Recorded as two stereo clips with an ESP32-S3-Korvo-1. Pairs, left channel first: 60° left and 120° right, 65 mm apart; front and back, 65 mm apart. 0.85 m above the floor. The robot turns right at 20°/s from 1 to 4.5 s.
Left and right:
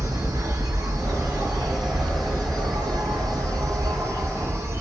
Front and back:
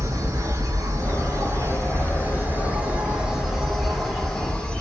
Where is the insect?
150° right, 0.9 m; by 4.8 s 80° right, 0.9 m.